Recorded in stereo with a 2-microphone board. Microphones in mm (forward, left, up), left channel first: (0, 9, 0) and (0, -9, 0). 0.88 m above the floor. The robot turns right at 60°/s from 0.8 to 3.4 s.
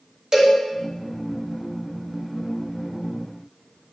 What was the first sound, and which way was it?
A cowbell, 40° right (ahead or behind).